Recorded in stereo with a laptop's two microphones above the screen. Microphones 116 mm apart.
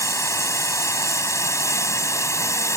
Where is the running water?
25° left (ahead or behind).